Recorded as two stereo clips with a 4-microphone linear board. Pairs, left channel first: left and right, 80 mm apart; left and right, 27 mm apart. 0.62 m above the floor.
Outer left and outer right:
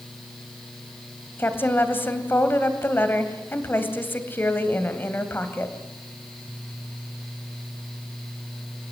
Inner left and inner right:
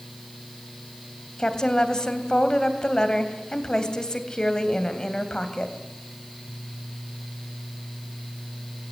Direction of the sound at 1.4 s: 25° left (ahead or behind).